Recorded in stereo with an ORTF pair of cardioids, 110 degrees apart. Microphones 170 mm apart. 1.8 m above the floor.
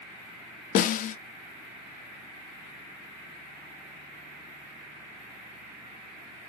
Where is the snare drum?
55° left, 0.5 m.